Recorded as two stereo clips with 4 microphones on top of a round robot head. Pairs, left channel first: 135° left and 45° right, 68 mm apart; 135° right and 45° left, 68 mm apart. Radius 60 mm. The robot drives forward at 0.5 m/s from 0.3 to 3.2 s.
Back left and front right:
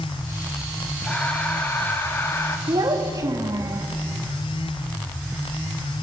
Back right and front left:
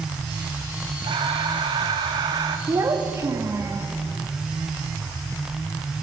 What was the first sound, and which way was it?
Breathing, 60° left.